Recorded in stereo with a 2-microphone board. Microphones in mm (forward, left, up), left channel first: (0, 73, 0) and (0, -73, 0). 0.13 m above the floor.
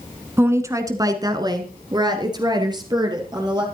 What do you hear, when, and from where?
0.4 s a woman speaking: 15° right (ahead or behind), 1.2 m; by 3.7 s 25° right (ahead or behind), 3 m